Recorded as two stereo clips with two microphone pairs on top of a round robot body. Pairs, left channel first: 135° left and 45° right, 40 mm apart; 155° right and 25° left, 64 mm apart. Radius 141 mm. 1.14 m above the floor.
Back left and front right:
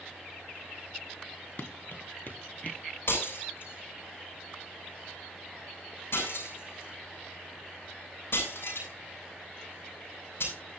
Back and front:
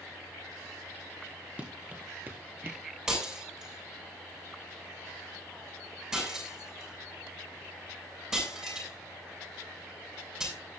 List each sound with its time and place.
1.6 s running footsteps: 100° left, 2 m; by 2.8 s 85° left, 1.7 m
3.1 s breaking glass: 105° left, 7.5 m